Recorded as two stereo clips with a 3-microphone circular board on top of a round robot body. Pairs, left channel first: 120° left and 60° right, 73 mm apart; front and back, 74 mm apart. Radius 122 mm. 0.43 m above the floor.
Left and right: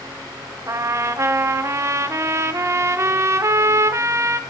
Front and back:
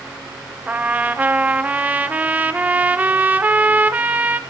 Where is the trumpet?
110° right, 0.5 m.